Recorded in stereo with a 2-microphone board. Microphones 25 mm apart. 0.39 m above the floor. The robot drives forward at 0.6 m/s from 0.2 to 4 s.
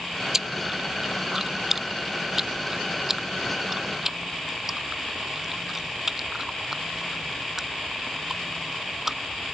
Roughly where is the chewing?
Centre.